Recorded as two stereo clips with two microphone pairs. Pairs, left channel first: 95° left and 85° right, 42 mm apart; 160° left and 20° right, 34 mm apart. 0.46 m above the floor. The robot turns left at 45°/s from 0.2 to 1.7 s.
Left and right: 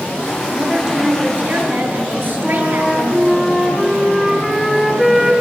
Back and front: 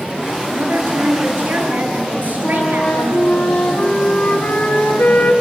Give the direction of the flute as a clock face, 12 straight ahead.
6 o'clock.